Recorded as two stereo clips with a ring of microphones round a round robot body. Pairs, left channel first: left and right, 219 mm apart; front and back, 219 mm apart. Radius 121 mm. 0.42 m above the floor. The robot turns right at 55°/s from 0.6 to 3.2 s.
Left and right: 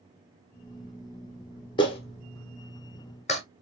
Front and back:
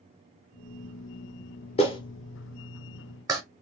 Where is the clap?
40° left, 1.0 m; by 3.4 s 115° left, 1.0 m.